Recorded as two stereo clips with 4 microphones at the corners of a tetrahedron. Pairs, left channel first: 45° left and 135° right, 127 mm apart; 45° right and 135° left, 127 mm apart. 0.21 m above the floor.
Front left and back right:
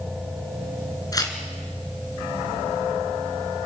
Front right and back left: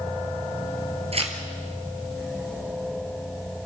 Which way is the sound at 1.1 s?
105° left.